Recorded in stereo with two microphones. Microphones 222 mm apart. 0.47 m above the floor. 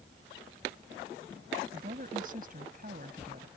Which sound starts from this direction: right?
A woman speaking, at 1.7 s.